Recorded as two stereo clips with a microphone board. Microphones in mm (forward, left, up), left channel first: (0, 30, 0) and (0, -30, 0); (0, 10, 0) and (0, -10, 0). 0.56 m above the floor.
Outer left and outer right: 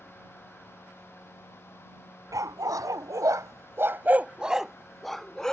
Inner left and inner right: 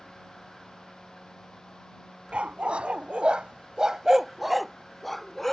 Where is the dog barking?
75° right (ahead or behind); by 5.5 s 10° left (ahead or behind).